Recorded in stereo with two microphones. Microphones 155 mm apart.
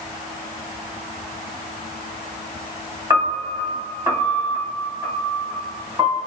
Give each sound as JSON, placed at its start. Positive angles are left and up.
{"t": 3.1, "sound": "a piano", "side_deg": -25, "distance_m": 1.9}